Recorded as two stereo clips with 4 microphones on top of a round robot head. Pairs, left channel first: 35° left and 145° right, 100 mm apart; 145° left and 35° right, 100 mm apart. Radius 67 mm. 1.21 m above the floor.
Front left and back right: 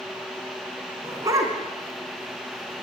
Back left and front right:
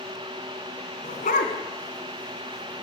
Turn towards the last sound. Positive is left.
turn(degrees=160)